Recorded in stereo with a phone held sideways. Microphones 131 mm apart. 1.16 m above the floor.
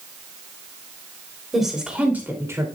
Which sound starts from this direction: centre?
A woman speaking, at 1.5 s.